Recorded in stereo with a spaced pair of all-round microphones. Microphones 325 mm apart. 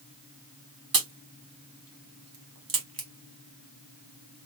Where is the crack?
85° right, 0.9 m.